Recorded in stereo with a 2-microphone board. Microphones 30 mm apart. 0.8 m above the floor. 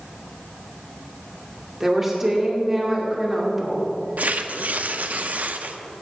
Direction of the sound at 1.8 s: 15° right (ahead or behind).